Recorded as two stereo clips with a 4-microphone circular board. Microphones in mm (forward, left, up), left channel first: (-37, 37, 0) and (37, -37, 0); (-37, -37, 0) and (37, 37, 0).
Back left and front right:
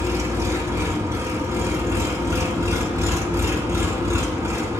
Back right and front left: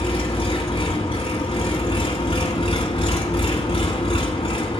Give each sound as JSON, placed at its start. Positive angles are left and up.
{"t": 0.0, "sound": "an engine running", "azimuth_deg": -105, "distance_m": 1.1}